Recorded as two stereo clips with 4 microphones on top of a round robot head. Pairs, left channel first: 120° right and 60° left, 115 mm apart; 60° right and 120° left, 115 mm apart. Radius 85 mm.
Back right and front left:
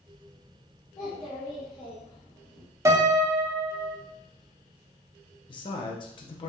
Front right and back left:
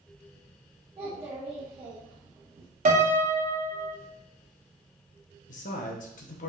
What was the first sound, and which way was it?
A child speaking, 175° left.